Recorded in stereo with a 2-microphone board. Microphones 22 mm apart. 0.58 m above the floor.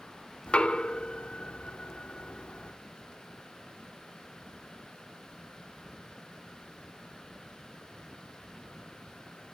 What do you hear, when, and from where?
0.5 s knocking: 60° left (ahead or behind), 0.8 m